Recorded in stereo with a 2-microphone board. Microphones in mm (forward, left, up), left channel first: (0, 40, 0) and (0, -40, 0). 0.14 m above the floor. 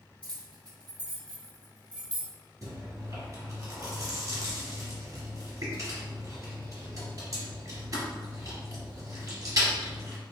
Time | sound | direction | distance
0.2 | keys jangling | 15° left (ahead or behind) | 1.5 m
2.6 | chewing | 40° right (ahead or behind) | 1.5 m